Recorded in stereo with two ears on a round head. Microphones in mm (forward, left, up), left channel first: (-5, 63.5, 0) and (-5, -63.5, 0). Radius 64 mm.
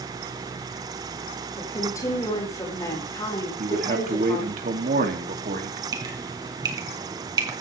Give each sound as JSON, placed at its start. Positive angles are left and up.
{"t": 1.6, "sound": "a woman speaking", "side_deg": 25, "distance_m": 5.0}
{"t": 3.6, "sound": "a man speaking", "side_deg": -60, "distance_m": 2.5}
{"t": 5.9, "sound": "dripping", "side_deg": -25, "distance_m": 3.0}